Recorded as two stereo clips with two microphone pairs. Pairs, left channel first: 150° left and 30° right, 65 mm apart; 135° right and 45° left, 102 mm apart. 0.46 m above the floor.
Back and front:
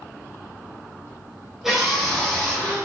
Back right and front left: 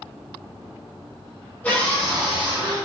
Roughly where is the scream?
Right.